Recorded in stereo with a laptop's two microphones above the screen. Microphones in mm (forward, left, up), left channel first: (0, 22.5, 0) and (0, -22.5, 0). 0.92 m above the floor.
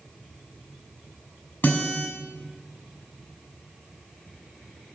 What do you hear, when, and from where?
1.6 s a guitar: 50° left (ahead or behind), 7.5 m